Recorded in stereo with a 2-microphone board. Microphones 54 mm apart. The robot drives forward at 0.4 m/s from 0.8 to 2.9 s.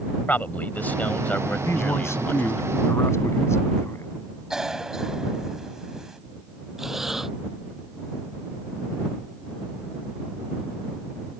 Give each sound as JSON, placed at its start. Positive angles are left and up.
{"t": 0.3, "sound": "a man speaking", "side_deg": 35}
{"t": 1.6, "sound": "a man speaking", "side_deg": 55}
{"t": 4.5, "sound": "a cough", "side_deg": -10}
{"t": 6.8, "sound": "breathing", "side_deg": -5}